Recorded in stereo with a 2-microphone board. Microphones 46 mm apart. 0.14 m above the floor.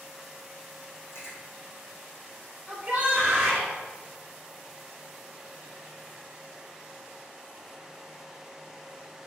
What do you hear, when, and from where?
1.1 s chewing: 70° left (ahead or behind), 1.7 m
2.7 s a shout: 15° right (ahead or behind), 1.1 m